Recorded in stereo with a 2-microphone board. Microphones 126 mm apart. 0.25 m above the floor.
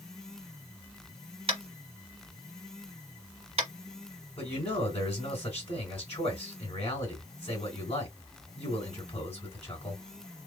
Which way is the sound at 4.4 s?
50° left (ahead or behind).